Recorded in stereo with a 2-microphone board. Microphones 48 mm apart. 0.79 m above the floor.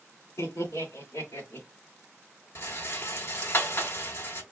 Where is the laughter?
75° left (ahead or behind), 3 m; by 1.7 s 70° left (ahead or behind), 2.5 m.